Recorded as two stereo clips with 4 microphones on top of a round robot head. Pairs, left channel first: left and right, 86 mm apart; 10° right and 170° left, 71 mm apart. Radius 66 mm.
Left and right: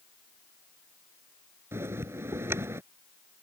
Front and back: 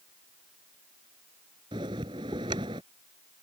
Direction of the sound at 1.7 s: 155° right.